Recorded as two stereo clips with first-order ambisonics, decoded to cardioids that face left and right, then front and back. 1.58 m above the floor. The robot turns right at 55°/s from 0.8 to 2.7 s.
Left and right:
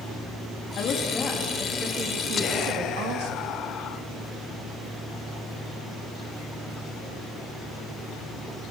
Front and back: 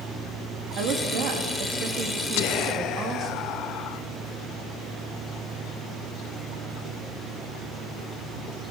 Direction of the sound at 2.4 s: 25° left.